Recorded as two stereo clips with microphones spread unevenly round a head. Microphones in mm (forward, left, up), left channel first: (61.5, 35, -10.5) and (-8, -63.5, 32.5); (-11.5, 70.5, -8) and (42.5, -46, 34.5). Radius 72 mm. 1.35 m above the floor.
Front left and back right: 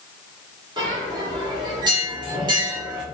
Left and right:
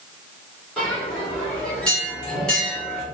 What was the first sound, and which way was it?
A bell, 145° right.